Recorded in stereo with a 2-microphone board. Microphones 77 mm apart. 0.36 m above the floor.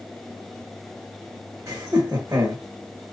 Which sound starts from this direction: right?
Laughter, at 1.7 s.